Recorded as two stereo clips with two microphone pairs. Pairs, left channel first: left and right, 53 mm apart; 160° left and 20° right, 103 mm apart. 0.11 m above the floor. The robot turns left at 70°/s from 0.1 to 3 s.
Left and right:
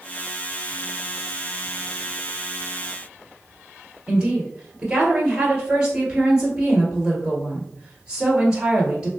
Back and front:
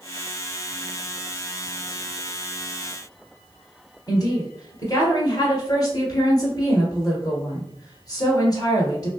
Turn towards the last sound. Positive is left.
turn(degrees=-155)